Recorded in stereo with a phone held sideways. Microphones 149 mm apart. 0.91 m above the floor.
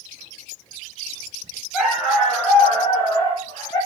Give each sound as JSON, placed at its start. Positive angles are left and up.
{"t": 1.7, "sound": "a dog barking", "side_deg": 0, "distance_m": 4.0}